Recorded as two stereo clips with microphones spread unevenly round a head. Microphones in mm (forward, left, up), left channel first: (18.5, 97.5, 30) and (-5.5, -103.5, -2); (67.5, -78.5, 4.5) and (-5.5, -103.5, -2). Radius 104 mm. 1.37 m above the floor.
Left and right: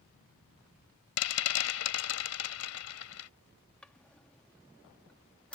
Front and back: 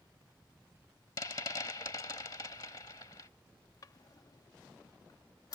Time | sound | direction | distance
1.2 | a rattle | 85° left | ?
3.8 | a drawer | 5° left | ?